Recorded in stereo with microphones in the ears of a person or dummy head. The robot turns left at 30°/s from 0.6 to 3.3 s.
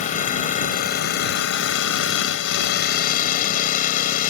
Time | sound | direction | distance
0.0 | an engine running | 130° left | ?